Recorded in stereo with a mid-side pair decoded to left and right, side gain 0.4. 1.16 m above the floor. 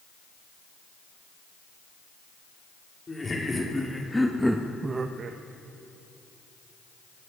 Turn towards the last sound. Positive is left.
turn(degrees=-70)